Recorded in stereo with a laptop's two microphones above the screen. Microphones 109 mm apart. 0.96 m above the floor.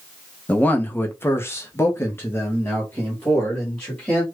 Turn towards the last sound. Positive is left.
turn(degrees=15)  # may be behind; listen again after turning